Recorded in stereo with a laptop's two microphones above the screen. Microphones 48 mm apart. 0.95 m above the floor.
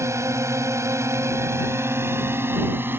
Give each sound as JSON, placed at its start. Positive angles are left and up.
{"t": 0.0, "sound": "a drone", "side_deg": -80}